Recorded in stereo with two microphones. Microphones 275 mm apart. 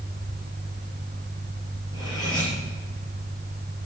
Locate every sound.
1.9 s cutlery clinking: 15° left (ahead or behind), 5 m